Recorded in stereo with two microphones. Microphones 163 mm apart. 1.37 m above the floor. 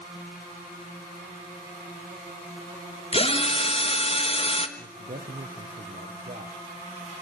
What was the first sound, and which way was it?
A drill, 35° left (ahead or behind).